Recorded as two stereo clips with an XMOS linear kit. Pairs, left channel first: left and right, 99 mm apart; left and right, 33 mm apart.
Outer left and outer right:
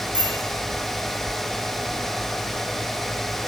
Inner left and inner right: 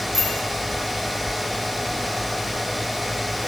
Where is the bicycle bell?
10° right (ahead or behind), 6.5 m.